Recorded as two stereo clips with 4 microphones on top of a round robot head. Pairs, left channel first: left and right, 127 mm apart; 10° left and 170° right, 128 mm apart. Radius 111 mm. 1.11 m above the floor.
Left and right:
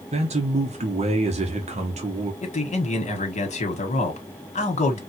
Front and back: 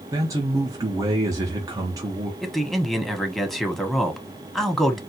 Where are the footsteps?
No footsteps in this recording.